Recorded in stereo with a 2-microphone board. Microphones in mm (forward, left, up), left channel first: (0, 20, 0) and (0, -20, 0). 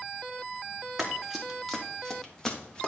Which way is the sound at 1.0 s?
5° right (ahead or behind).